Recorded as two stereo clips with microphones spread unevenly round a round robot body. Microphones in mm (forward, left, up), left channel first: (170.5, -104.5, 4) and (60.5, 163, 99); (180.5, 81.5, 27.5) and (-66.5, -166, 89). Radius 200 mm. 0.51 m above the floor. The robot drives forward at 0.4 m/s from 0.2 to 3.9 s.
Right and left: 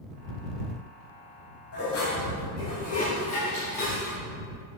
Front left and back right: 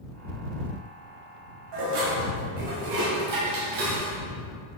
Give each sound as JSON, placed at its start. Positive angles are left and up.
{"t": 1.7, "sound": "dishes clattering", "azimuth_deg": -120, "distance_m": 2.5}